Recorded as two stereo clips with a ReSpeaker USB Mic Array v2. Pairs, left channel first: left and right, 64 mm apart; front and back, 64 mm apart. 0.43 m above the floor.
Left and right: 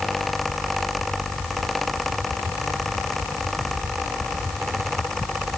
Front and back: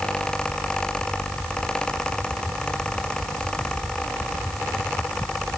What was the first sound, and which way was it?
Only background noise.